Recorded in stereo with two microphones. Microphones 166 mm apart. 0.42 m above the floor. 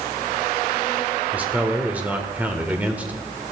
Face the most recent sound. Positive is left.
turn(degrees=-10)  # may be behind; listen again after turning